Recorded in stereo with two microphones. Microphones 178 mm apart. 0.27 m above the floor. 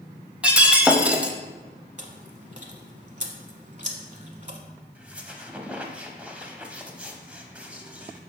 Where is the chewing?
45° right (ahead or behind), 0.9 m.